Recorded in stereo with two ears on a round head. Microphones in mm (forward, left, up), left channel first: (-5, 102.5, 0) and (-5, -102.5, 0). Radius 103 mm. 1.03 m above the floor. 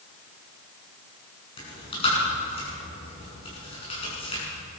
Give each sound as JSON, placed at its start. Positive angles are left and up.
{"t": 1.6, "sound": "chewing", "side_deg": 25, "distance_m": 7.0}